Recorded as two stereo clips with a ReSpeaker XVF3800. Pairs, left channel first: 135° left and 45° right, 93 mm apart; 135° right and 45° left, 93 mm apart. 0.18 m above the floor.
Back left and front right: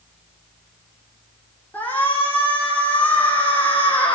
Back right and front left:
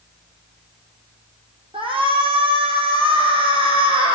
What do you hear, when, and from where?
1.7 s a shout: 60° left, 8.5 m